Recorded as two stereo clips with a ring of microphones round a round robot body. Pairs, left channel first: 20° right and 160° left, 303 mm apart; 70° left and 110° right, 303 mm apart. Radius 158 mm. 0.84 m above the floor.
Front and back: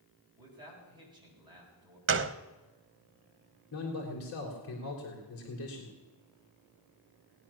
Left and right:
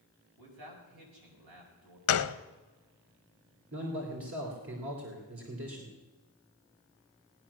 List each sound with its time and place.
0.4 s a man speaking: 125° right, 6.5 m
2.1 s a gunshot: 110° left, 0.8 m
3.7 s a man speaking: 65° right, 3 m